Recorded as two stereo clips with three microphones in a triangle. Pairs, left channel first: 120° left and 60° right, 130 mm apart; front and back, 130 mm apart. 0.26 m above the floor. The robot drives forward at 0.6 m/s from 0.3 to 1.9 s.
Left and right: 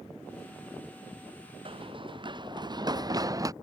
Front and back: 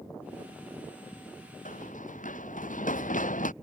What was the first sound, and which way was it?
Running footsteps, 10° right.